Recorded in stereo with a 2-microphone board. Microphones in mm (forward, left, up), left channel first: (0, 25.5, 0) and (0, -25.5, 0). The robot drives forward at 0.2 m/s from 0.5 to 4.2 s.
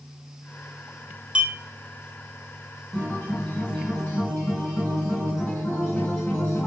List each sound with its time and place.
1.4 s a clink: 20° right (ahead or behind), 0.5 m
2.9 s a guitar: 25° left (ahead or behind), 1.8 m